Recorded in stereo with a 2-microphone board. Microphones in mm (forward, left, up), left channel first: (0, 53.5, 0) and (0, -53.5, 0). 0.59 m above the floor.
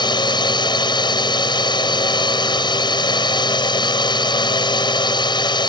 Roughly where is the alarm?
I don't hear an alarm.